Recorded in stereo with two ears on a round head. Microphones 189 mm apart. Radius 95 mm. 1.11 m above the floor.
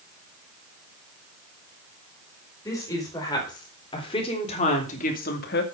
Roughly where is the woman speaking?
Centre.